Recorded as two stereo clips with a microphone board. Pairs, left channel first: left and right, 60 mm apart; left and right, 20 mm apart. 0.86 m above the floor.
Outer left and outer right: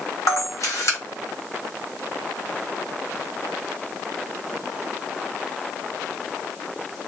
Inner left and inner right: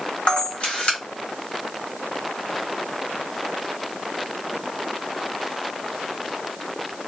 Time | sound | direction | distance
0.3 | a camera shutter | 60° left (ahead or behind) | 1.1 m